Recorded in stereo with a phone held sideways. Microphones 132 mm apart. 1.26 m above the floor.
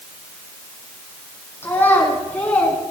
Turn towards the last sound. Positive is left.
turn(degrees=10)  # may be behind; listen again after turning